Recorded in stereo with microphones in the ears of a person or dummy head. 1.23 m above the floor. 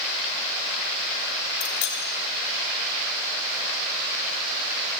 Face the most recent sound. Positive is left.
turn(degrees=40)  # may be behind; listen again after turning